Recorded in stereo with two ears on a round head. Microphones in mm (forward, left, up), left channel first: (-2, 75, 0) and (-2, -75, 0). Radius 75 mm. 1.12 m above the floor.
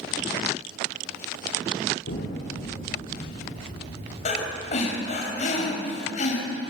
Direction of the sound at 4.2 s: 45° left (ahead or behind).